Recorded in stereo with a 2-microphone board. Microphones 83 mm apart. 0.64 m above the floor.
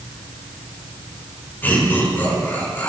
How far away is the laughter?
About 6 m.